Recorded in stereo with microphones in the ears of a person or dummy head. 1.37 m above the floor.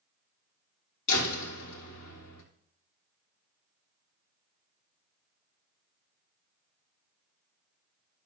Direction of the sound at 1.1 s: 65° left (ahead or behind).